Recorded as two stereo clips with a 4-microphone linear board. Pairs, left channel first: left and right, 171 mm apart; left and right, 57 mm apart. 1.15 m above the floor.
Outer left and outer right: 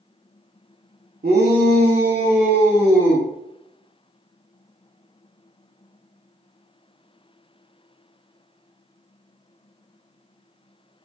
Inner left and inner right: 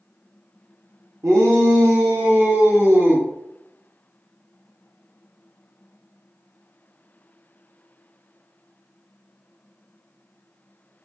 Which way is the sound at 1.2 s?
60° right (ahead or behind).